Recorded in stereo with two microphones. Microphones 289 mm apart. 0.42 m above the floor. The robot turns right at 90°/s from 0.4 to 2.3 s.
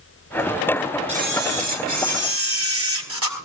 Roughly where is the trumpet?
I don't hear a trumpet.